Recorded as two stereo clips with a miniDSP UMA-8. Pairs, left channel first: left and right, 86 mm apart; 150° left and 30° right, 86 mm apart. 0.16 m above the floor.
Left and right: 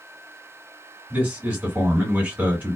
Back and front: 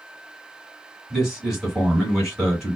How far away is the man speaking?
About 1.7 m.